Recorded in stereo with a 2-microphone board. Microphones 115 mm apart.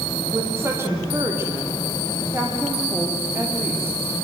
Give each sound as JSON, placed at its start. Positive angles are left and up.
{"t": 0.3, "sound": "a woman speaking", "side_deg": -20, "distance_m": 5.0}